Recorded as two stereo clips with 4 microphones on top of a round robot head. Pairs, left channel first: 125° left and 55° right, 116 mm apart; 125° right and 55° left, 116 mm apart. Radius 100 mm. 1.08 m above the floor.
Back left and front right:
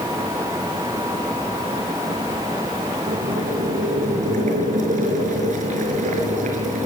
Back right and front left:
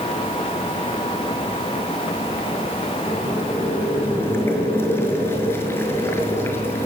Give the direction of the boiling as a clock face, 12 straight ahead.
2 o'clock.